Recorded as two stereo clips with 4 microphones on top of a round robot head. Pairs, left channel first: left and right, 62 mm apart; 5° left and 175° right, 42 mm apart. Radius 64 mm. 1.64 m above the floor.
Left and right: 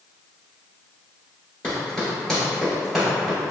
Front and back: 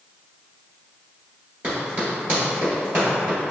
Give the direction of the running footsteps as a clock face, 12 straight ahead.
7 o'clock.